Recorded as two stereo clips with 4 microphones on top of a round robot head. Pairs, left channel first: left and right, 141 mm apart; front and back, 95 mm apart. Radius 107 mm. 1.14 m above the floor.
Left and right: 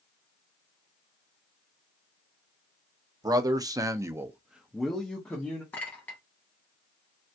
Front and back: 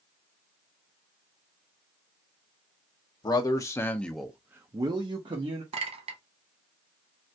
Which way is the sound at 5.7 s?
170° left.